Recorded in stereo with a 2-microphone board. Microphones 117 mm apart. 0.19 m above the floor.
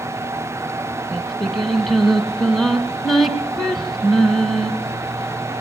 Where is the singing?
Centre (ahead or behind), 1.8 m.